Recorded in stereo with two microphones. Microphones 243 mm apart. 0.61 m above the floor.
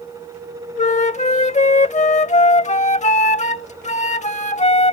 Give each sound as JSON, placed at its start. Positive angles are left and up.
{"t": 0.8, "sound": "a flute", "side_deg": 30}